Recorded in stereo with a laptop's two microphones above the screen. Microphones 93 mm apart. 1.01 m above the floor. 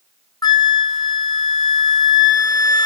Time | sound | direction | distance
0.4 | a flute | 40° left (ahead or behind) | 1.3 m